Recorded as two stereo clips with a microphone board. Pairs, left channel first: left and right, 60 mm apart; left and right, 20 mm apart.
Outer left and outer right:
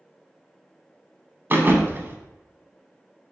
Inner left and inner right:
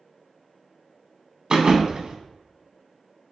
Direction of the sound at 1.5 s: 40° right (ahead or behind).